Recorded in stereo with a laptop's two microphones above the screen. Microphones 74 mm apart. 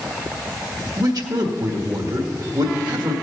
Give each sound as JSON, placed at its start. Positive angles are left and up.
{"t": 1.0, "sound": "a man speaking", "side_deg": -65, "distance_m": 1.6}